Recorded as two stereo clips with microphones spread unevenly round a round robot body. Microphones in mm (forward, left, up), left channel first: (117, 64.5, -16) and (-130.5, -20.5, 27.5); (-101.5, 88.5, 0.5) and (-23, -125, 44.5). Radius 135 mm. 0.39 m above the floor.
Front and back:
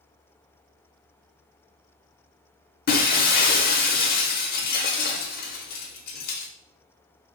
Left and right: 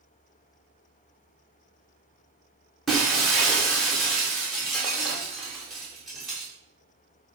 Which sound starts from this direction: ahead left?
Breaking glass, at 2.9 s.